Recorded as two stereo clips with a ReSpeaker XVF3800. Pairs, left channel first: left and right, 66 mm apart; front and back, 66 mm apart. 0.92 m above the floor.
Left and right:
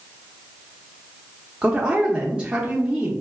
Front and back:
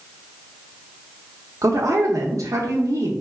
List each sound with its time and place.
1.6 s a woman speaking: 160° right, 0.7 m